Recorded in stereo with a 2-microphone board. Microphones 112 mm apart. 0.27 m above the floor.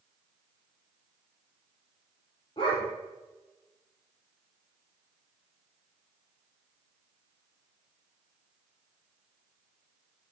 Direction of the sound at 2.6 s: 50° left (ahead or behind).